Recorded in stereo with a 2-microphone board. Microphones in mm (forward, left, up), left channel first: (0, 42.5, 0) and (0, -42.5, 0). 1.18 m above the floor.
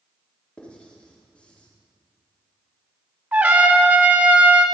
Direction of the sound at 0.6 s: 15° left (ahead or behind).